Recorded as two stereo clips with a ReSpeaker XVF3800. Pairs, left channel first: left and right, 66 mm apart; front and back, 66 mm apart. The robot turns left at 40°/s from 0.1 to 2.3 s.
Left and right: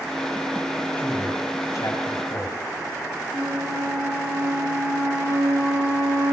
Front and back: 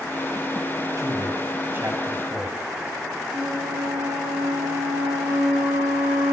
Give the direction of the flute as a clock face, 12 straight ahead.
4 o'clock.